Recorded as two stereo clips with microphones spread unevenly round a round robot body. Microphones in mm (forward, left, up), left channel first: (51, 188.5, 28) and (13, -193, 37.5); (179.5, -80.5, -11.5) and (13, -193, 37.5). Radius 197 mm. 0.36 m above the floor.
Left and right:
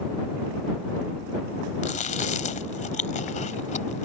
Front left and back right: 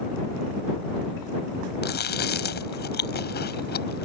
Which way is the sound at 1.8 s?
15° left.